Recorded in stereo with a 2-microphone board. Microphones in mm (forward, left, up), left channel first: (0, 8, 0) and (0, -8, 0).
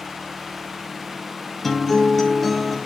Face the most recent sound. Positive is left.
turn(degrees=15)  # may be behind; listen again after turning